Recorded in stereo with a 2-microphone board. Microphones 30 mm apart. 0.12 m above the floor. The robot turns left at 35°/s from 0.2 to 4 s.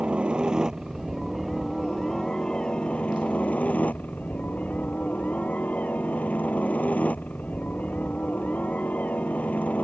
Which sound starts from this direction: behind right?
A helicopter, at 0.0 s.